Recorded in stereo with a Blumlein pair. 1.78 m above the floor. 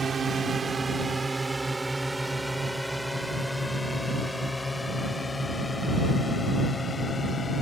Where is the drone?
15° right; by 7.6 s 15° left.